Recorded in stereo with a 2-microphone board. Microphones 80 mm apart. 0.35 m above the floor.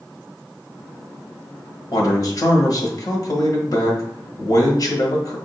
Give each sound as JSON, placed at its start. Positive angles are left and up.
{"t": 1.9, "sound": "a man speaking", "side_deg": 50, "distance_m": 1.4}